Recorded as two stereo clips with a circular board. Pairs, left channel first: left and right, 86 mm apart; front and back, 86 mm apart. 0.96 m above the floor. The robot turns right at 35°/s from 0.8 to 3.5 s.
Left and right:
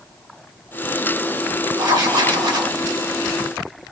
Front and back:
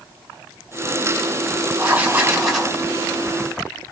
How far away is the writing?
About 1.3 m.